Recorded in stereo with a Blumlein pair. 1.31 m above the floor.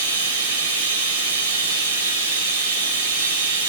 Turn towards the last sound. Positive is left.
turn(degrees=-65)